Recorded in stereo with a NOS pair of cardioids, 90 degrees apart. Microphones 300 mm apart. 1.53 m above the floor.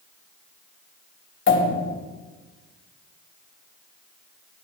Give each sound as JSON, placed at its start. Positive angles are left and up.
{"t": 1.5, "sound": "a pop", "azimuth_deg": 40, "distance_m": 2.0}